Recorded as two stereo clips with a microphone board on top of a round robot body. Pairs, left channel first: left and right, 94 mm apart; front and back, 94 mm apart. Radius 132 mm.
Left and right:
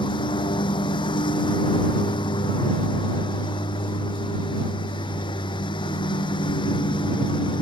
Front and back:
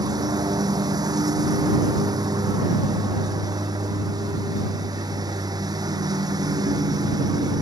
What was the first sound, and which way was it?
A lawn mower, 130° left.